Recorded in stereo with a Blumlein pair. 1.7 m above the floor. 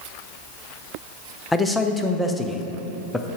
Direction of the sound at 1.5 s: 5° left.